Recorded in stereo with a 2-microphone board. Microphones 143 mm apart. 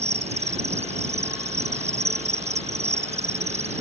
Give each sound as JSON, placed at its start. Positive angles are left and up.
{"t": 0.0, "sound": "an insect", "side_deg": -50}